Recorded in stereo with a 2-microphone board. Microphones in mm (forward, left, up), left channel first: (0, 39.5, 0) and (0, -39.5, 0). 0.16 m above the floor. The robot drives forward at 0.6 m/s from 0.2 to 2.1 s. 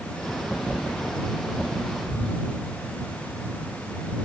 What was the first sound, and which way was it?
Whispering, 10° left (ahead or behind).